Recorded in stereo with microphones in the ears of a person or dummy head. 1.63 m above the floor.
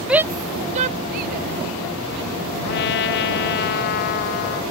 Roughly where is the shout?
Centre.